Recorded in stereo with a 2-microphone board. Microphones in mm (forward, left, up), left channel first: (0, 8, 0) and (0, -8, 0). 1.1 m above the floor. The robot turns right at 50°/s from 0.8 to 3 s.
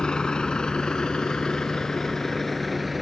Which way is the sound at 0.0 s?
75° left (ahead or behind).